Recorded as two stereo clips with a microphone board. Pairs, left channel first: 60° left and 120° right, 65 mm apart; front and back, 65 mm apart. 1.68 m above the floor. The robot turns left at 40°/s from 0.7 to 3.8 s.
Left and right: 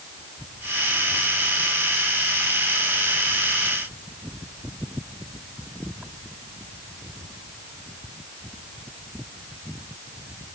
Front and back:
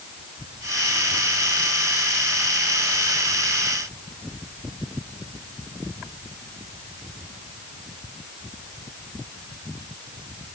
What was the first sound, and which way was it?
Only background noise.